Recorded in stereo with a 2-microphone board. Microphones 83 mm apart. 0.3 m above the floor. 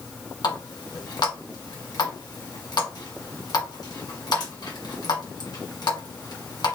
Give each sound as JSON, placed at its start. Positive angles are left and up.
{"t": 0.4, "sound": "a running tap", "side_deg": 55, "distance_m": 1.8}